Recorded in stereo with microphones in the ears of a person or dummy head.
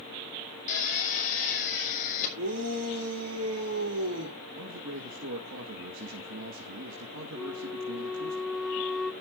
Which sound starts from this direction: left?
A drill, at 0.7 s.